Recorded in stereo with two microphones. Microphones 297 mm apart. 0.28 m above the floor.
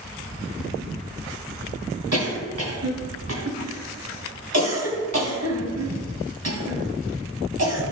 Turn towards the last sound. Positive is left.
turn(degrees=-55)  # may be behind; listen again after turning